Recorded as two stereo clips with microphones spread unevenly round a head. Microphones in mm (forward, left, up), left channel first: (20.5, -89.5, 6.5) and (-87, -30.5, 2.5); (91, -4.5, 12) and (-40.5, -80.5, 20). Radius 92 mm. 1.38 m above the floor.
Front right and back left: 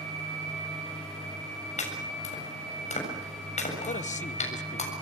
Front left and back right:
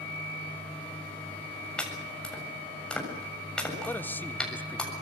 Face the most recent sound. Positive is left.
turn(degrees=-45)